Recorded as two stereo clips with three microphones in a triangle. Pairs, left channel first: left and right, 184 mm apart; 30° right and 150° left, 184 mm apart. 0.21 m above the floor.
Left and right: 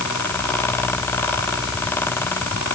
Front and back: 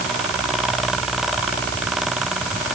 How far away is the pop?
I don't hear a pop.